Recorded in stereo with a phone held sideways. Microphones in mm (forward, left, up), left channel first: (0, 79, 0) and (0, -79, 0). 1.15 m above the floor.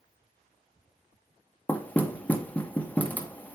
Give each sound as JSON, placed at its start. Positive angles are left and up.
{"t": 1.7, "sound": "knocking", "side_deg": 10, "distance_m": 1.2}